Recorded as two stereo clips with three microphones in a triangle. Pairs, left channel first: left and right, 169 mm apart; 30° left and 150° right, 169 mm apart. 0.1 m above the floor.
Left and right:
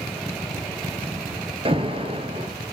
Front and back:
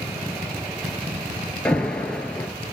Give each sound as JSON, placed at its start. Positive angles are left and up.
{"t": 1.6, "sound": "an alarm", "azimuth_deg": -50, "distance_m": 1.4}